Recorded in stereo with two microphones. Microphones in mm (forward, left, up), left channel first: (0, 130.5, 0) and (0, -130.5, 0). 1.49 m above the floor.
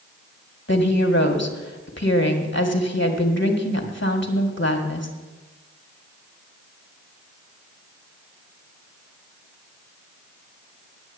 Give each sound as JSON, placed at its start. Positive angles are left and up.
{"t": 0.7, "sound": "a woman speaking", "side_deg": 45, "distance_m": 1.8}